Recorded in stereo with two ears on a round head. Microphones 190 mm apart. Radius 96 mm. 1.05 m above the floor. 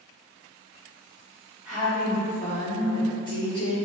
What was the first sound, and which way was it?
A woman speaking, 5° right (ahead or behind).